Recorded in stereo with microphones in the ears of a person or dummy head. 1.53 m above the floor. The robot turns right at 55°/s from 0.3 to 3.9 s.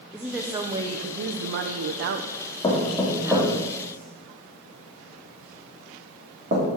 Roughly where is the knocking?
Left.